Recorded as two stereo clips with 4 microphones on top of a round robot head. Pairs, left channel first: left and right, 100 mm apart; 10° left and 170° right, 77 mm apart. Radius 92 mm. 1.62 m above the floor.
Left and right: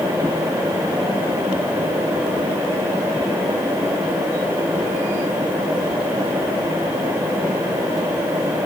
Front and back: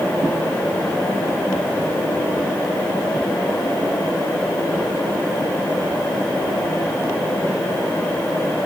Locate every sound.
Only background noise.